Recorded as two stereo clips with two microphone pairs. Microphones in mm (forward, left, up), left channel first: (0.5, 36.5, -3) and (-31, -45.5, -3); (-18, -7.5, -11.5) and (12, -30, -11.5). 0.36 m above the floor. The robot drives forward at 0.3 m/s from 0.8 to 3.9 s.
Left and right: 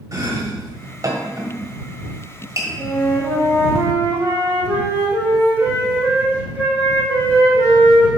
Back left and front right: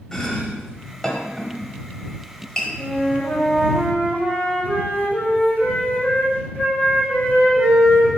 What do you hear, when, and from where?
0.1 s chopping: 145° right, 1.3 m; by 2.7 s 155° right, 1.7 m
2.8 s a flute: 175° right, 3.5 m